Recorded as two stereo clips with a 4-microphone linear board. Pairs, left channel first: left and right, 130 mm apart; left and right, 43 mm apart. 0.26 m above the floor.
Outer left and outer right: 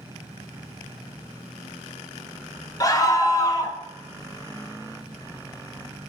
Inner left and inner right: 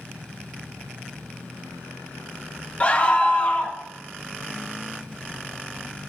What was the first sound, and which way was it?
A scream, 30° left (ahead or behind).